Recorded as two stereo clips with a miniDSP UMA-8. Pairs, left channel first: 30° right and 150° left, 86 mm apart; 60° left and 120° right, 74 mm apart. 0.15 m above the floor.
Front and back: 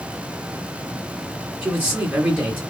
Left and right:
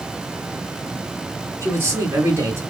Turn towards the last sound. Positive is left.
turn(degrees=-150)